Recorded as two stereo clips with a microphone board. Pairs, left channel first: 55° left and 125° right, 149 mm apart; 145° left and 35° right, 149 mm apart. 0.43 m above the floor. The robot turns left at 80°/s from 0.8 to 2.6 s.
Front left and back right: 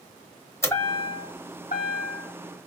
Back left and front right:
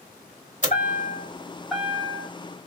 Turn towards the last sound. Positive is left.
turn(degrees=-20)